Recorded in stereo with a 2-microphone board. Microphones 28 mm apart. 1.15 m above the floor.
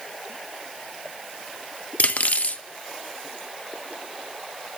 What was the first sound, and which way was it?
Cutlery clinking, 55° left (ahead or behind).